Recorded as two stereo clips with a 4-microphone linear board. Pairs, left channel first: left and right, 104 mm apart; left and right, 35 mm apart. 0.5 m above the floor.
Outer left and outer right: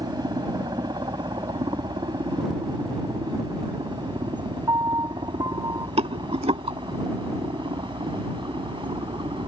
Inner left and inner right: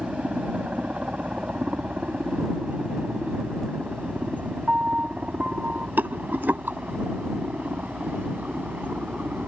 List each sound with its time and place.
0.0 s a helicopter: 40° right (ahead or behind); by 9.5 s 50° right (ahead or behind)
4.7 s a piano: 40° right (ahead or behind)
6.0 s a rattle: 75° right (ahead or behind)